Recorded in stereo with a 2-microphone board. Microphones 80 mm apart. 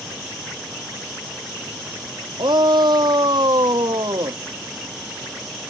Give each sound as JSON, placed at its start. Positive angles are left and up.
{"t": 2.4, "sound": "a shout", "side_deg": -70}